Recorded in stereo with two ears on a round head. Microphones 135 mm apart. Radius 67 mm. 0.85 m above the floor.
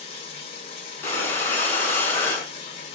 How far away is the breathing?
About 3.5 m.